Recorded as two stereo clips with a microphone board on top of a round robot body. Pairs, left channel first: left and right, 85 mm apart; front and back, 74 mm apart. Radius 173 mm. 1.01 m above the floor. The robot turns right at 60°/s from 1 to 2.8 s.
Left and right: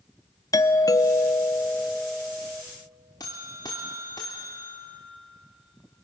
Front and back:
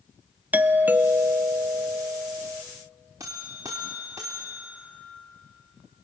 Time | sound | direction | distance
0.5 | a doorbell | 120° left | 0.8 m
3.2 | a buzzer | 130° left | 0.6 m